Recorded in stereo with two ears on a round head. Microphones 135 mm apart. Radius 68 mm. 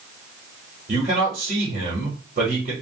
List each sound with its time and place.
0.9 s a man speaking: 55° right (ahead or behind), 1.4 m